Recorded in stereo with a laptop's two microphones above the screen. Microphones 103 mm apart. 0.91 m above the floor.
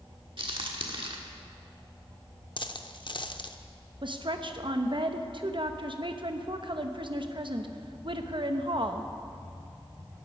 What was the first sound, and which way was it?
A crack, 60° right (ahead or behind).